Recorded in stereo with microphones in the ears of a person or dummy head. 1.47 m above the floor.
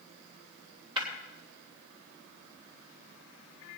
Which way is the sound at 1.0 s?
30° right (ahead or behind).